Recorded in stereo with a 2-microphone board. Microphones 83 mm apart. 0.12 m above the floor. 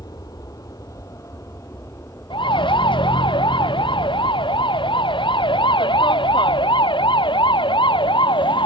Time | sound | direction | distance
0.0 | an aircraft | 50° left (ahead or behind) | ?
2.3 | a siren | 80° left | ?